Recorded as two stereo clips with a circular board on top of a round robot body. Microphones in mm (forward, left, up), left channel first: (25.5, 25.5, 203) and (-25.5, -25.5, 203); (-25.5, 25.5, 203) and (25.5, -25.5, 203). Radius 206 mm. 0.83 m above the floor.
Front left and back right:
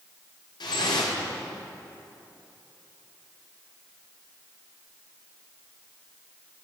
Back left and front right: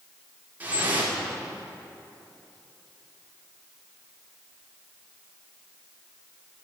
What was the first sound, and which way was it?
Dripping, 25° left.